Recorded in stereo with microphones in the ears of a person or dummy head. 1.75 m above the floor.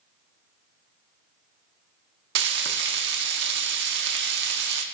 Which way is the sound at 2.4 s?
65° right (ahead or behind).